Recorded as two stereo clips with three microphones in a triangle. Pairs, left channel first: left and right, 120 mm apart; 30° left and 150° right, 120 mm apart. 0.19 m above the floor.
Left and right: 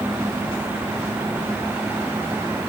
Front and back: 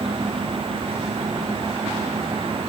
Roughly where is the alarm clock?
No alarm clock in this recording.